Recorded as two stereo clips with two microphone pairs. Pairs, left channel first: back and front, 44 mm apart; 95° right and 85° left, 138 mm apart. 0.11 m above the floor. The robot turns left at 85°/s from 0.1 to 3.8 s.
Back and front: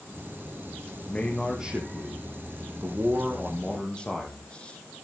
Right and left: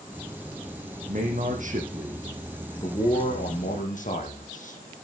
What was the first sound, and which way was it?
A man speaking, 115° left.